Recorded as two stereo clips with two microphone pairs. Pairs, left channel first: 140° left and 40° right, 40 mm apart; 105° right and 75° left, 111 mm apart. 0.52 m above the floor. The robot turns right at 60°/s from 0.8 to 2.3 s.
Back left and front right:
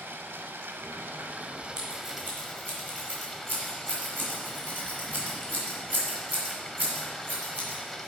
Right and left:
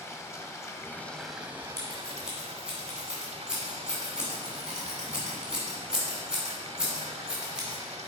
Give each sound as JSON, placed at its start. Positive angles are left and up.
{"t": 0.0, "sound": "running water", "azimuth_deg": -40, "distance_m": 0.7}
{"t": 1.8, "sound": "scissors", "azimuth_deg": -40, "distance_m": 2.5}